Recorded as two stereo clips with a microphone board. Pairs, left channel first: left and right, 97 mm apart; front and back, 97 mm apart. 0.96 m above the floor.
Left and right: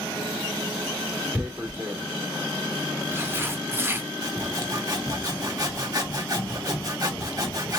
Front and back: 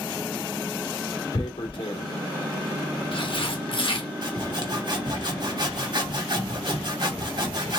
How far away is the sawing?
About 1.6 m.